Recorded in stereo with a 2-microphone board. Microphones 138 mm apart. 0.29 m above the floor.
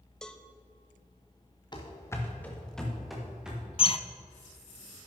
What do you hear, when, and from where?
0.2 s a cowbell: 5° left (ahead or behind), 0.6 m
1.7 s running footsteps: 35° left (ahead or behind), 1.7 m; by 3.6 s 5° right (ahead or behind), 3.5 m
3.8 s a bird: 45° left (ahead or behind), 0.5 m